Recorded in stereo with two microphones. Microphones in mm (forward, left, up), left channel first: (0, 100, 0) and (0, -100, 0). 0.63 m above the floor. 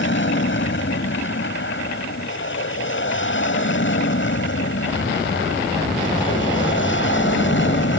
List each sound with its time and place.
0.0 s an aircraft: 65° left (ahead or behind)